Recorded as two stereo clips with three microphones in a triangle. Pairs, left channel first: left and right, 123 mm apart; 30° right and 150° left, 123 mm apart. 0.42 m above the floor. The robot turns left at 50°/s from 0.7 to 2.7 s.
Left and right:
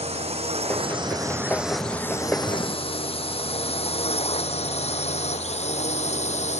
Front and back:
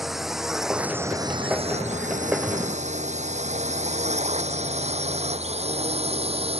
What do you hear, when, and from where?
0.0 s a drone: 120° right; by 6.6 s 115° left